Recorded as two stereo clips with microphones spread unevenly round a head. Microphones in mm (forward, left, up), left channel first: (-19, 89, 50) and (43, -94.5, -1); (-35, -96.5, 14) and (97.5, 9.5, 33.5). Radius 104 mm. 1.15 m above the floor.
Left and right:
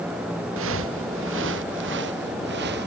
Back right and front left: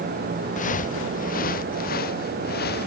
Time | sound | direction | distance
0.6 | footsteps | 100° right | ?